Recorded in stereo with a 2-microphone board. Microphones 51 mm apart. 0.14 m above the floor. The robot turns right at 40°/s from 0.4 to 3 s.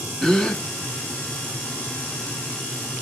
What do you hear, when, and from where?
0.2 s a gasp: 15° left (ahead or behind), 0.5 m